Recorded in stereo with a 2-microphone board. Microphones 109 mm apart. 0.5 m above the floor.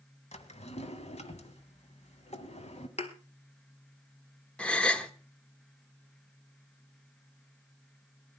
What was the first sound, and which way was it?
A drawer, 85° left.